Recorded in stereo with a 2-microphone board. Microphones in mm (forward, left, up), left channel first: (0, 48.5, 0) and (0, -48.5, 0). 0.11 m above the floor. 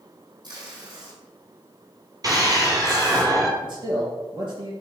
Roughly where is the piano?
I don't hear a piano.